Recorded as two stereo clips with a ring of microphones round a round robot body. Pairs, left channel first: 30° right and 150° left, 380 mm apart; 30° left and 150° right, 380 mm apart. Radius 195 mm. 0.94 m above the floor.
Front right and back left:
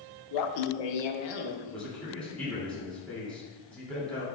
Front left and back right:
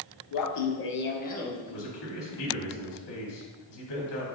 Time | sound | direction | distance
0.3 | laughter | 5° left | 0.7 m
1.7 | a man speaking | 55° left | 3 m